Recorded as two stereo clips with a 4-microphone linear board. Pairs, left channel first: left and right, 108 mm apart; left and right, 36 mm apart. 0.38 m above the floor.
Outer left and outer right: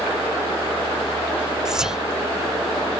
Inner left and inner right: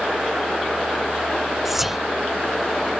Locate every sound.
1.6 s whispering: 5° right (ahead or behind)